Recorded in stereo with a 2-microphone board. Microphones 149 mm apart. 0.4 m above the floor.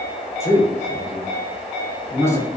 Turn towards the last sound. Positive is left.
turn(degrees=15)  # may be behind; listen again after turning